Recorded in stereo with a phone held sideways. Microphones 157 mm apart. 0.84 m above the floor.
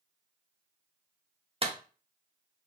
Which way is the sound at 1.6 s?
40° right (ahead or behind).